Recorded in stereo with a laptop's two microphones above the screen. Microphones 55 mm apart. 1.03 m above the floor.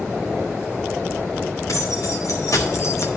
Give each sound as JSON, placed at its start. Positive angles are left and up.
{"t": 1.7, "sound": "keys jangling", "side_deg": 75, "distance_m": 2.5}